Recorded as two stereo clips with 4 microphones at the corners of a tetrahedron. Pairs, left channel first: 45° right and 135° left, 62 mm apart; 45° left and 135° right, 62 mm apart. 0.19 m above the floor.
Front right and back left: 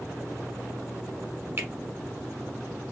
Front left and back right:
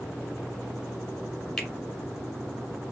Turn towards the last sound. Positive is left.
turn(degrees=120)